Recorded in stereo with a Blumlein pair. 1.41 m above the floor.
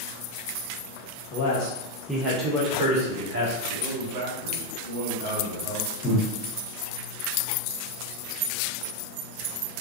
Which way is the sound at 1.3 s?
40° left.